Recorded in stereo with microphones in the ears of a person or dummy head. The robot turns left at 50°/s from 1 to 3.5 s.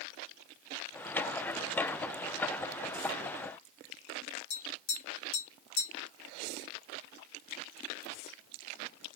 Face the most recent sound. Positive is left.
turn(degrees=55)  # may be behind; listen again after turning